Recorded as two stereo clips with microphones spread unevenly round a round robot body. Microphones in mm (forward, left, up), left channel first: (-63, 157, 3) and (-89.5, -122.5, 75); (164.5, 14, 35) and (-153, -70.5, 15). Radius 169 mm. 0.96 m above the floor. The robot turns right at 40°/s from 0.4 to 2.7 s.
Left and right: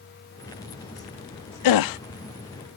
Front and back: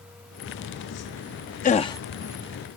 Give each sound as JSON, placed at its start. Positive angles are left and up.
{"t": 1.6, "sound": "a gasp", "azimuth_deg": 85}